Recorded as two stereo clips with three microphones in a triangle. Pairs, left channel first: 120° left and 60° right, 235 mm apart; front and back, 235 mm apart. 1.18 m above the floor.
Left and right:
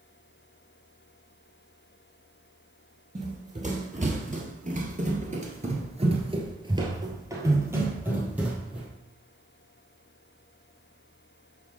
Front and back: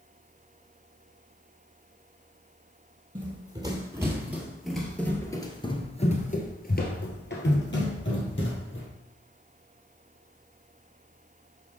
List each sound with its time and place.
3.1 s running footsteps: 115° right, 2 m; by 8.9 s 25° left, 2.5 m